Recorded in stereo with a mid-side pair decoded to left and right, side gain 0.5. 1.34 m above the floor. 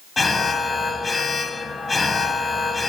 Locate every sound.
0.2 s an alarm: 25° left, 1.6 m